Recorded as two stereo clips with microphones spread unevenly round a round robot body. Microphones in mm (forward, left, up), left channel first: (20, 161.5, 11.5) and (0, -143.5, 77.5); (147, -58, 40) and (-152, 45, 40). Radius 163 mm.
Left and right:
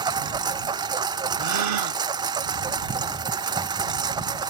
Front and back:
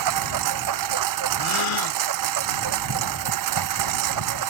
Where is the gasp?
55° right.